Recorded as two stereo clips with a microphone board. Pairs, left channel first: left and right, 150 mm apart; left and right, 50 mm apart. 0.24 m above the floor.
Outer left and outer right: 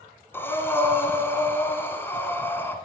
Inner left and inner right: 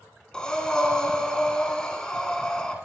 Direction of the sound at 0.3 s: 15° left (ahead or behind).